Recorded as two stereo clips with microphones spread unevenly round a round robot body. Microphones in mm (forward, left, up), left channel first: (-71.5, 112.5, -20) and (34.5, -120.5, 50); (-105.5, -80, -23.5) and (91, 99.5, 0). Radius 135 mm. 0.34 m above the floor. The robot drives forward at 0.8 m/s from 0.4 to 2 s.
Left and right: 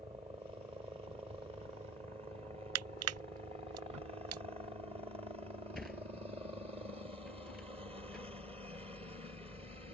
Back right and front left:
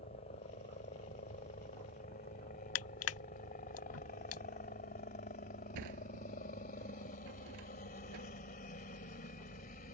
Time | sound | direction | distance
0.0 | a helicopter | 135° right | ?
2.8 | crushing | 100° right | ?
5.8 | a sliding door | 25° left | ?